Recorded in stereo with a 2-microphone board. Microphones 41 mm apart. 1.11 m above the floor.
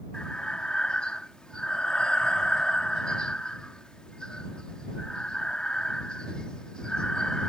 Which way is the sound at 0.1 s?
20° left (ahead or behind).